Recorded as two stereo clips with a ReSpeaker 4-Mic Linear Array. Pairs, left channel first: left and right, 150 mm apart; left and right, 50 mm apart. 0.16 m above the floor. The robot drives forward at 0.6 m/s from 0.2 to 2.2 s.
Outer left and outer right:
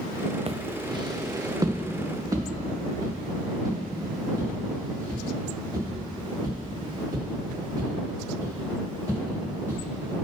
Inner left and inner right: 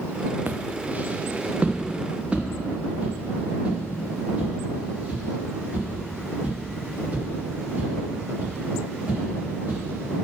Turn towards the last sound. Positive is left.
turn(degrees=-25)  # may be behind; listen again after turning